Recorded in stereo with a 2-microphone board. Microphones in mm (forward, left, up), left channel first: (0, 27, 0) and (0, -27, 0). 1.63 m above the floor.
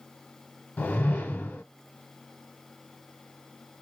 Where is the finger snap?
No finger snap in this recording.